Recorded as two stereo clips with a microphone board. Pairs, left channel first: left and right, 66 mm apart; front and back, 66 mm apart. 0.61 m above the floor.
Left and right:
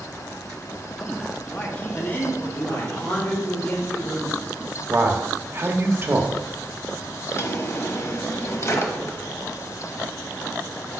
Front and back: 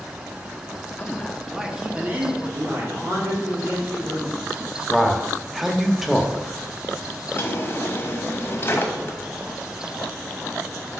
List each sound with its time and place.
1.0 s a man speaking: 15° left, 0.9 m; by 3.2 s 145° left, 1.8 m
2.9 s a man speaking: 150° left, 2.5 m
4.9 s a man speaking: 95° right, 0.8 m
7.3 s a drawer: 50° left, 1.0 m